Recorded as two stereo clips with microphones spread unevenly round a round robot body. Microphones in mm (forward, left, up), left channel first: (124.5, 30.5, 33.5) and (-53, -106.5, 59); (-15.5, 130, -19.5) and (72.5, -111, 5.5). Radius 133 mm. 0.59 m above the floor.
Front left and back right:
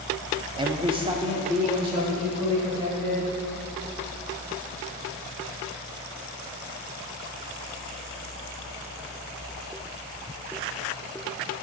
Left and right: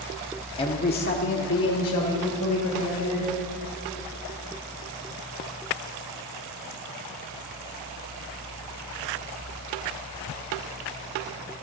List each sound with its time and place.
0.6 s a man speaking: 155° left, 0.6 m; by 3.3 s 145° left, 3 m